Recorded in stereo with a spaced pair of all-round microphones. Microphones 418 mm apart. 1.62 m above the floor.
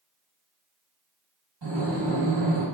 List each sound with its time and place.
1.6 s breathing: 70° right (ahead or behind), 1.4 m